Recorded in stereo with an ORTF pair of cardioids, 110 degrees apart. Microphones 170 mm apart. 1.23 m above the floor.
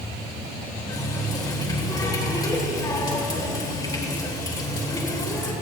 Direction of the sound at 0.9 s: 25° left.